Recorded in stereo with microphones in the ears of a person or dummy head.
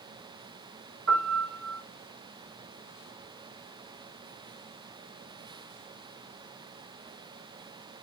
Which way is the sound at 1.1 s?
70° right (ahead or behind).